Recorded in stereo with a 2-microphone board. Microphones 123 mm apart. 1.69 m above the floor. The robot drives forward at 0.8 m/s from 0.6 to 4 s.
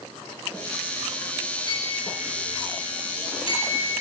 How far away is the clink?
About 9.5 m.